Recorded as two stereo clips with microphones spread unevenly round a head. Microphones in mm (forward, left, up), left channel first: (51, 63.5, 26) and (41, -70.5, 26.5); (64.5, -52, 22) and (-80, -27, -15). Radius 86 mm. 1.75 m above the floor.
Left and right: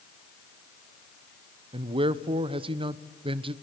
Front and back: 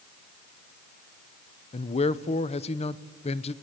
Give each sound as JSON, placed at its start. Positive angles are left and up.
{"t": 1.7, "sound": "a man speaking", "azimuth_deg": -45, "distance_m": 1.0}